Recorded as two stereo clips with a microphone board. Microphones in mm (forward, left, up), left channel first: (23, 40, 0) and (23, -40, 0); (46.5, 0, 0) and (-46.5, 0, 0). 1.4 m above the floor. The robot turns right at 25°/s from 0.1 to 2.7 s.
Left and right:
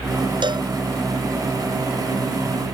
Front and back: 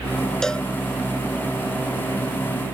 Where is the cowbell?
85° right; by 0.7 s 80° right.